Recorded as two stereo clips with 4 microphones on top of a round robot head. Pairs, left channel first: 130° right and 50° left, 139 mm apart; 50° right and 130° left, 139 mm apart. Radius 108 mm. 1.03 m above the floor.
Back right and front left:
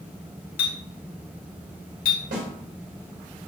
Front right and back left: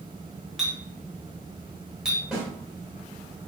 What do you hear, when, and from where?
0.6 s a clink: 145° right, 0.8 m
2.3 s a snare drum: 45° left, 1.6 m